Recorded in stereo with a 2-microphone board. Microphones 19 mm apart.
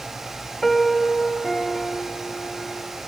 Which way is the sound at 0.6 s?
20° left (ahead or behind).